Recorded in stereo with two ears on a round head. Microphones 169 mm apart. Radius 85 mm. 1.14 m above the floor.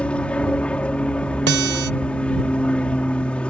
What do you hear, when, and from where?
0.0 s an aircraft: 5° left (ahead or behind)
1.5 s a guitar: 60° right (ahead or behind)